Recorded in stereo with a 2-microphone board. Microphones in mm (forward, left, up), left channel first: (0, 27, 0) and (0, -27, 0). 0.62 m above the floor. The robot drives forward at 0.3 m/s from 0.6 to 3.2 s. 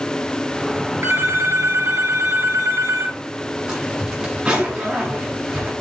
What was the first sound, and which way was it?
A phone ringing, 65° right (ahead or behind).